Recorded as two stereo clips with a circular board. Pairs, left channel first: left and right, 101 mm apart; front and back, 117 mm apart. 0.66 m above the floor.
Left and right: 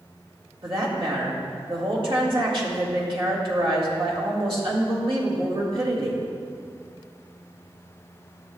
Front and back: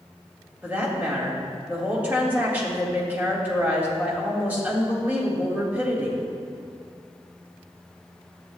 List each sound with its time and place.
0.6 s a woman speaking: 110° right, 1.9 m